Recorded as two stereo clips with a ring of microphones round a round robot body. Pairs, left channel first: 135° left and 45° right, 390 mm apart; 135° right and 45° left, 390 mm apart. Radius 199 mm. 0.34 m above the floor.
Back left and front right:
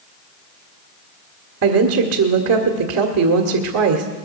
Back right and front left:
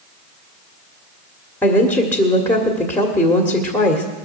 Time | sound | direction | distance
1.6 | a woman speaking | 55° right | 1.6 m